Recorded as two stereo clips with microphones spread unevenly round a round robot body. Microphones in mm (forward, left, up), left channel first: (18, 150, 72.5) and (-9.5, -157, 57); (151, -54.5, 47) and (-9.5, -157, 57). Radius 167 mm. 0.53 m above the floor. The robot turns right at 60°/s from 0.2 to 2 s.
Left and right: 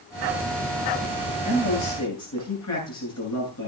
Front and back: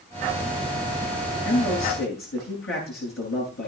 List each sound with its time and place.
1.4 s a man speaking: 15° left, 9.5 m; by 3.7 s 50° left, 9.5 m